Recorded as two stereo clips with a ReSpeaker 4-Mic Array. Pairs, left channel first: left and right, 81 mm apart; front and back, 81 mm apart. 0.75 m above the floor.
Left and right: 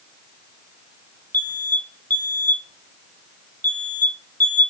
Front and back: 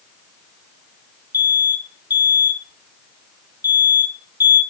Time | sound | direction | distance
1.3 | an alarm | 20° left | 2.5 m